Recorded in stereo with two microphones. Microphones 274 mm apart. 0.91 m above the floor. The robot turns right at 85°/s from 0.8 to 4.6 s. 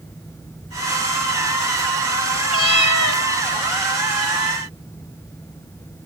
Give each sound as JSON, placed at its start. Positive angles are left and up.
{"t": 2.5, "sound": "a cat meowing", "azimuth_deg": 50, "distance_m": 1.5}